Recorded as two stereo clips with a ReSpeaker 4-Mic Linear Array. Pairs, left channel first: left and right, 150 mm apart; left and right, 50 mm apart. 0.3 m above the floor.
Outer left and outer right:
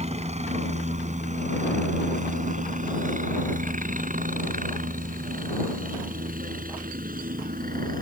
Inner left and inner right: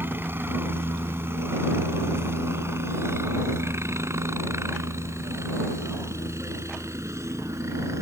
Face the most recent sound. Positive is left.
turn(degrees=-70)  # may be behind; listen again after turning